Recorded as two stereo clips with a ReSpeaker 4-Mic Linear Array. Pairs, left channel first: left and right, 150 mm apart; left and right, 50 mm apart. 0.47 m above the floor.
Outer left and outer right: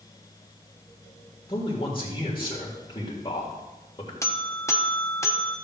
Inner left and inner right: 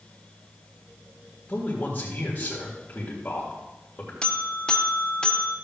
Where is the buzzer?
20° left (ahead or behind), 0.8 m.